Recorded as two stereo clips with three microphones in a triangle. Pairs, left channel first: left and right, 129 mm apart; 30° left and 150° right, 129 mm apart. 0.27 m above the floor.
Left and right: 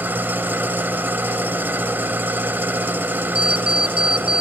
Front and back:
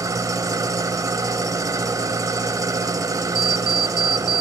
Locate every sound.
0.0 s an engine running: 145° right, 1.1 m
3.4 s an alarm clock: 175° right, 0.7 m